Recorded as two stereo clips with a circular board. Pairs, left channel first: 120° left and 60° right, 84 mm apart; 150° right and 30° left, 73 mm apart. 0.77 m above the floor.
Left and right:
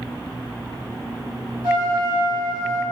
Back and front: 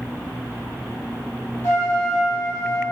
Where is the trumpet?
95° right, 1.2 m.